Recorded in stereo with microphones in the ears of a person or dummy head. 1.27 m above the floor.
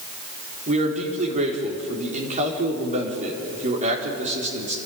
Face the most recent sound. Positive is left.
turn(degrees=-40)  # may be behind; listen again after turning